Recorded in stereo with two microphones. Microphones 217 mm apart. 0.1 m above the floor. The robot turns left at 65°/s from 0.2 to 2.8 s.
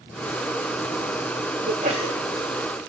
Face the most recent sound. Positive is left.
turn(degrees=160)